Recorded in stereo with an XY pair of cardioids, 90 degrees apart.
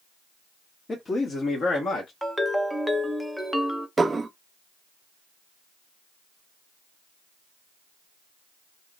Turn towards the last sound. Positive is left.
turn(degrees=-30)